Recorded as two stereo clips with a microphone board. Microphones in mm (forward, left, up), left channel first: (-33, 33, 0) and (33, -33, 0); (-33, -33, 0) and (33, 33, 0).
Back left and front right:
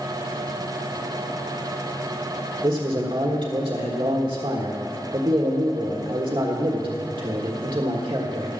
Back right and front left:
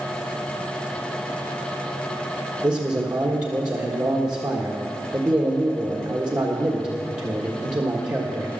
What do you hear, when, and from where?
2.6 s a man speaking: 5° right, 1.5 m